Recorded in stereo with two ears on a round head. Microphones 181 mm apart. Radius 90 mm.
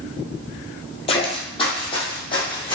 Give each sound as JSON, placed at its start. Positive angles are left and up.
{"t": 1.1, "sound": "footsteps", "side_deg": 30, "distance_m": 0.8}